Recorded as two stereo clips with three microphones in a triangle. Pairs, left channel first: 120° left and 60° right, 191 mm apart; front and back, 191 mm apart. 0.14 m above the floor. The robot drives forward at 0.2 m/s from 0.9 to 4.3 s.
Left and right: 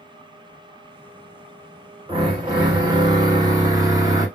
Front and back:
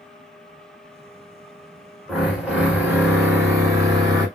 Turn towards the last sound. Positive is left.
turn(degrees=-125)